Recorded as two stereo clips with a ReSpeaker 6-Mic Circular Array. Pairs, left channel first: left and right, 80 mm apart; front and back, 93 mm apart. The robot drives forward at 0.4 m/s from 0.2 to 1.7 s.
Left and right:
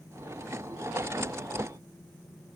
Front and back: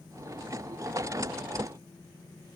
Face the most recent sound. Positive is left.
No sound to turn to.